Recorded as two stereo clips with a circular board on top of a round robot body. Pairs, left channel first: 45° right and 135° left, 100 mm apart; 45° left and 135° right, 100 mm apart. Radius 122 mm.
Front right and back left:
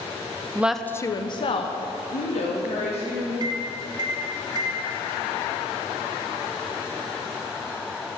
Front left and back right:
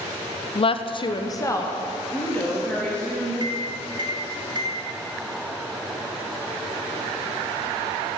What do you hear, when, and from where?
0.6 s a woman speaking: 70° left, 0.6 m; by 3.3 s 35° right, 2.5 m
3.4 s a microwave: straight behind, 1.0 m